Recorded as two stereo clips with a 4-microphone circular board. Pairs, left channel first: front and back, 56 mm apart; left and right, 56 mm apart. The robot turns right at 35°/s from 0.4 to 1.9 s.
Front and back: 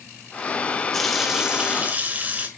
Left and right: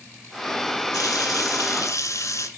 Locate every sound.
0.9 s a running tap: 85° left, 2.5 m; by 2.5 s 120° left, 2.5 m